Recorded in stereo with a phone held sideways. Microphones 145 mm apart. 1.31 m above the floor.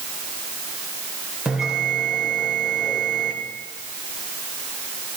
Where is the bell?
5° right (ahead or behind), 2.5 m.